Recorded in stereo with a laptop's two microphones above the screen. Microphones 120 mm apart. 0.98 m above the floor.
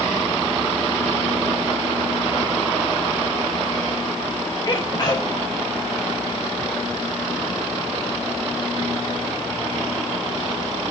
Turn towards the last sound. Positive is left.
turn(degrees=35)  # may be behind; listen again after turning